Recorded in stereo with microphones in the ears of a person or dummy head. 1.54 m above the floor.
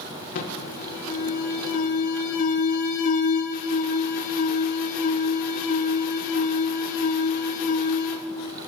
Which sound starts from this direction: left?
An alarm, at 0.3 s.